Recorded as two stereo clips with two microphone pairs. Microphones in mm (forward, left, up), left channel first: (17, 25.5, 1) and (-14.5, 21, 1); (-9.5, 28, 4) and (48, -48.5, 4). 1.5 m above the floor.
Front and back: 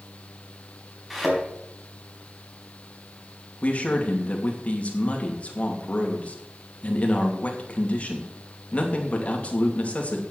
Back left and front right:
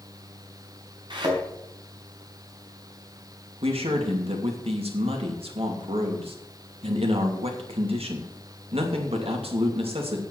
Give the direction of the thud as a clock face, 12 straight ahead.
3 o'clock.